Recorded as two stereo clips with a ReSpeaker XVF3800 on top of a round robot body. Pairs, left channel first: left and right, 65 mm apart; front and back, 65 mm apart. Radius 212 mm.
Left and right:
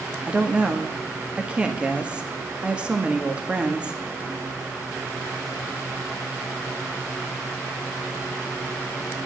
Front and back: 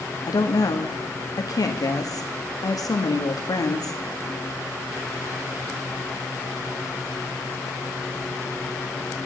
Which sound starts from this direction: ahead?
A woman speaking, at 0.3 s.